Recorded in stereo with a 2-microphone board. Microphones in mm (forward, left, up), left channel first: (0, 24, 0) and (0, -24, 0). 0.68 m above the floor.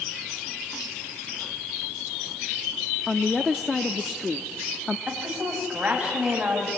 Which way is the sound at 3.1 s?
5° left (ahead or behind).